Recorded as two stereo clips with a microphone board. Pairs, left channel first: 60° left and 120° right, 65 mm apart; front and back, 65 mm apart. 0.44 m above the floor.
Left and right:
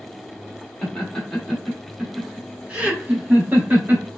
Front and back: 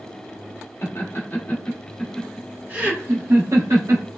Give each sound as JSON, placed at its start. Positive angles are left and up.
{"t": 0.8, "sound": "laughter", "azimuth_deg": -15, "distance_m": 1.0}